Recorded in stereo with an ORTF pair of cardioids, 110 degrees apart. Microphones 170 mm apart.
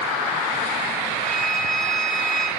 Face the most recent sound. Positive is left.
turn(degrees=5)